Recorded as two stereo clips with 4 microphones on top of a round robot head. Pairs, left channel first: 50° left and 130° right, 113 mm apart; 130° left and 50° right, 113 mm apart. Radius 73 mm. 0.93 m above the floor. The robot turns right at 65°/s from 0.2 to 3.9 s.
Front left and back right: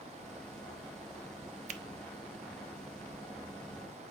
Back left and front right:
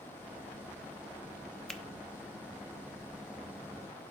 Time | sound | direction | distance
1.7 | a finger snap | 145° right | 0.6 m